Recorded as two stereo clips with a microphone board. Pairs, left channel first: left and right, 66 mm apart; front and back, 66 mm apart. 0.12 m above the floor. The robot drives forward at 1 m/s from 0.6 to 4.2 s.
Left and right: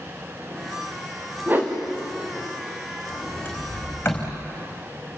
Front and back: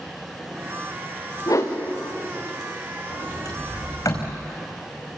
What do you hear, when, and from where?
1.5 s a whoosh: 30° right, 4.5 m
3.1 s a sliding door: 25° left, 5.5 m; by 4.3 s 35° left, 4.5 m